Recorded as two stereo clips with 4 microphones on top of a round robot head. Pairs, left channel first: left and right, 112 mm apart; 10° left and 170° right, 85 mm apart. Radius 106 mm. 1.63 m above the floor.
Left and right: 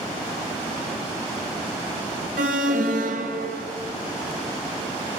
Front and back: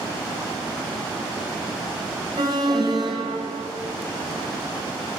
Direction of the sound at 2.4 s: 115° right.